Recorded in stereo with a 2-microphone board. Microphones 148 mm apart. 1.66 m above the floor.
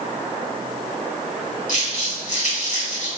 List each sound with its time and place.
1.7 s crumpling: 55° left (ahead or behind), 1.6 m